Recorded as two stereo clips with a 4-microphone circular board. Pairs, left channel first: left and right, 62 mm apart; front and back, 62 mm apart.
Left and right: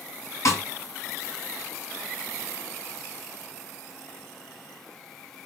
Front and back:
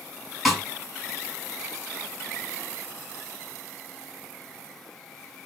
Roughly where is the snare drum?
Left.